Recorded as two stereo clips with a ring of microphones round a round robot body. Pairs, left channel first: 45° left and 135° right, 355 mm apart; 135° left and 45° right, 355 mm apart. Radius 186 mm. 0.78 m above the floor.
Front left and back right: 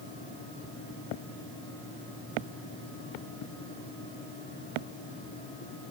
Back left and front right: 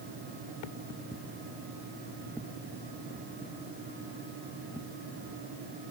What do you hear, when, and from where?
Only background noise.